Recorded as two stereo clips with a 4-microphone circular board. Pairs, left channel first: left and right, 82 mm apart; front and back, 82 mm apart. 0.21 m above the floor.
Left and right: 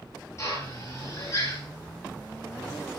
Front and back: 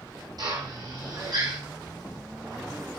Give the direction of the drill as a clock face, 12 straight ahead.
7 o'clock.